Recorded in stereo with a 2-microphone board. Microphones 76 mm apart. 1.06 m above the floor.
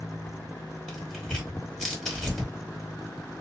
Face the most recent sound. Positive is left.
turn(degrees=5)  # may be behind; listen again after turning